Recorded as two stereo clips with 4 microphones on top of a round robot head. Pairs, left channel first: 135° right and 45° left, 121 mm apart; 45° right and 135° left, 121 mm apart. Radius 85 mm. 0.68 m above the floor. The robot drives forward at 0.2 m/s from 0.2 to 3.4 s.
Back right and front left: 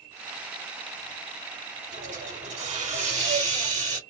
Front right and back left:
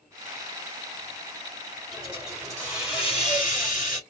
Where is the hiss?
50° left, 3 m; by 4.0 s 55° left, 3 m.